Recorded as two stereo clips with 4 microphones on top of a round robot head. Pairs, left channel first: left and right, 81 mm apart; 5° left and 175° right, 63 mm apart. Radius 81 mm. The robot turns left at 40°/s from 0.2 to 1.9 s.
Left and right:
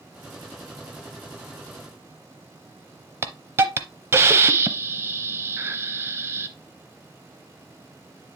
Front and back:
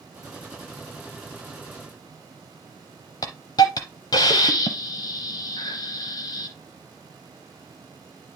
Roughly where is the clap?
No clap in this recording.